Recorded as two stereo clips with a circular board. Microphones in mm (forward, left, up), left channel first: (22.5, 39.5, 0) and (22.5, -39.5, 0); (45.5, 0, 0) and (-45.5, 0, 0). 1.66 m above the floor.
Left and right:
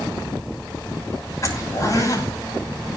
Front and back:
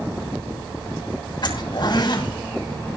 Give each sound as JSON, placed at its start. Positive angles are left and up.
{"t": 1.4, "sound": "a zipper", "azimuth_deg": 40, "distance_m": 7.0}